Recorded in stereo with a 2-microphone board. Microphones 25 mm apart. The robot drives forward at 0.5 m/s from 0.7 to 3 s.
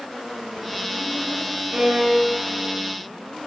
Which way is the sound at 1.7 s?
70° right (ahead or behind).